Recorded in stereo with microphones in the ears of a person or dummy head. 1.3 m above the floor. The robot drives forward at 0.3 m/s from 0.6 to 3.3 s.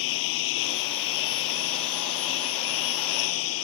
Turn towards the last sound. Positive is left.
turn(degrees=80)